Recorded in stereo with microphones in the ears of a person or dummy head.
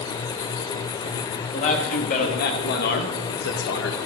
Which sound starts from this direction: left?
A man speaking, at 1.5 s.